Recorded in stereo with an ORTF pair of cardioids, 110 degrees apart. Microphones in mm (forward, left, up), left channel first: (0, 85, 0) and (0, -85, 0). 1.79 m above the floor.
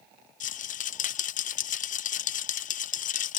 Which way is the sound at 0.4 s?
50° left.